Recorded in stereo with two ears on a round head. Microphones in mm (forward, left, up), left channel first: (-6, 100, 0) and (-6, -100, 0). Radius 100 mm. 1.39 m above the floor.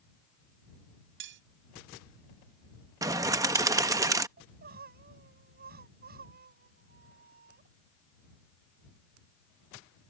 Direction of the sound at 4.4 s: 45° right (ahead or behind).